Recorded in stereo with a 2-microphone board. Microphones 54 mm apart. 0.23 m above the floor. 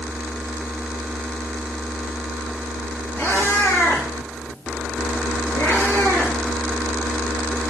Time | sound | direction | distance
3.2 | a cat meowing | 75° left (ahead or behind) | 1.9 m